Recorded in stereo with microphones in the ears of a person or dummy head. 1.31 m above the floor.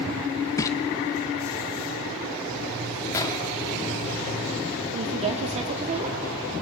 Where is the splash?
20° left (ahead or behind), 1.2 m.